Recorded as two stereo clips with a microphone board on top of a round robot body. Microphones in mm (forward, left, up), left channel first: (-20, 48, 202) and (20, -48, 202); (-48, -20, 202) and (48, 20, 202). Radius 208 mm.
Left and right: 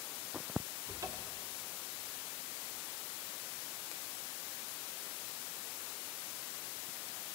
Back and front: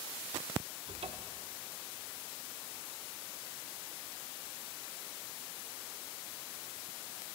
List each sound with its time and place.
0.9 s a cupboard door: 5° right, 0.5 m